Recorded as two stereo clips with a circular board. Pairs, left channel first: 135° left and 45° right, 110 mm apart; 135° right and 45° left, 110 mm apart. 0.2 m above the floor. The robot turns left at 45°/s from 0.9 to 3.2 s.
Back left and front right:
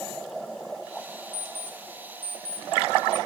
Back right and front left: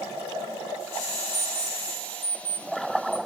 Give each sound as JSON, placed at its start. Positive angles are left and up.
{"t": 1.3, "sound": "an alarm clock", "azimuth_deg": 130, "distance_m": 6.0}